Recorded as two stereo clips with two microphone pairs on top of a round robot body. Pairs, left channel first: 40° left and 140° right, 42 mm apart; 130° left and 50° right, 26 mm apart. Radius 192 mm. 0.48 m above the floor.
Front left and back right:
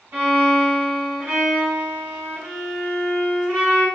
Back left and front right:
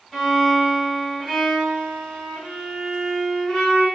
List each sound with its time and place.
0.1 s a violin: 140° right, 1.5 m